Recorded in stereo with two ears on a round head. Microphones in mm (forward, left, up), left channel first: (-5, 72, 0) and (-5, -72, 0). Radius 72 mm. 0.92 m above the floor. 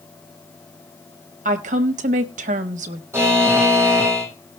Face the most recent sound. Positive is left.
turn(degrees=-15)  # may be behind; listen again after turning